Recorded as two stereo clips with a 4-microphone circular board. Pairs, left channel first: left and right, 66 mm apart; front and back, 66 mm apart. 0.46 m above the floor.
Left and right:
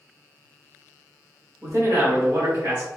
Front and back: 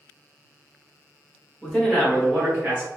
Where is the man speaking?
70° right, 1.2 m; by 2.9 s 120° right, 2 m.